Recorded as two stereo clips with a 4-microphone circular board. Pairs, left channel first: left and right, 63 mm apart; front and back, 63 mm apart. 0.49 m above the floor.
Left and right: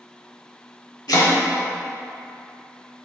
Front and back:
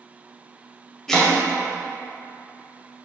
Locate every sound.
1.1 s chopping: 80° left, 0.6 m